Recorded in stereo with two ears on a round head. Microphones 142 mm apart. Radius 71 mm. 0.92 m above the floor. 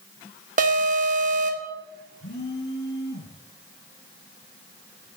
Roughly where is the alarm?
Right.